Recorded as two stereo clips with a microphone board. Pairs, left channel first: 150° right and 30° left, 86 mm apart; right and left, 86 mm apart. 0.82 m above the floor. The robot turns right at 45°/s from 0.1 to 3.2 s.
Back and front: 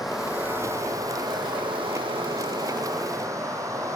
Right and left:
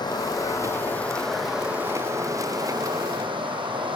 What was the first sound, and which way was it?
Running water, 60° right.